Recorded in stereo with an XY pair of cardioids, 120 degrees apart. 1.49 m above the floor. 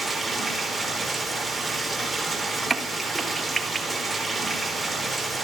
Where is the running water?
Straight ahead, 4.5 m.